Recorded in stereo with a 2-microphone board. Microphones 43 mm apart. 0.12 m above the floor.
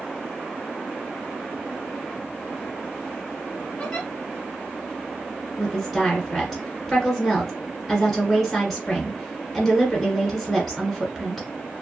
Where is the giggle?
25° left (ahead or behind), 1.3 m.